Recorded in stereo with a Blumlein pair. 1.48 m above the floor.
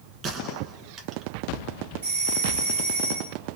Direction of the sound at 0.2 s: 30° right.